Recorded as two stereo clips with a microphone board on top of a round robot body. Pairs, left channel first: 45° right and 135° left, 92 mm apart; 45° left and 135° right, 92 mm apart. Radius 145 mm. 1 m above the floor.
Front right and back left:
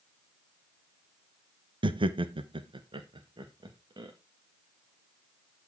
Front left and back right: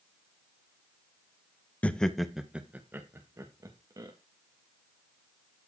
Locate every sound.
1.8 s laughter: 120° left, 1.3 m; by 4.1 s straight behind, 2 m